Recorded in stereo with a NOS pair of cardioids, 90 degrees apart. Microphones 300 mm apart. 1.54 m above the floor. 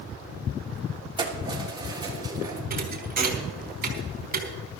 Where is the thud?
30° right, 4.5 m.